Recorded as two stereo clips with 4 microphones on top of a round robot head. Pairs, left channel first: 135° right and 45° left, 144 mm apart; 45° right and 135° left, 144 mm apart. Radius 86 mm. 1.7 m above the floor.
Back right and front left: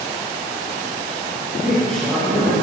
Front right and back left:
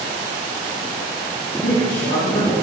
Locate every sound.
1.6 s a man speaking: 45° right, 3 m